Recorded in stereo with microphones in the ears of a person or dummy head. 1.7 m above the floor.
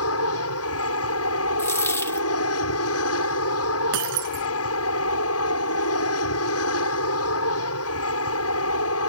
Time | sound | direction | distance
0.0 | an aircraft | 75° left (ahead or behind) | ?
1.6 | a dropped coin | 15° left (ahead or behind) | ?
3.9 | breaking glass | 70° right (ahead or behind) | ?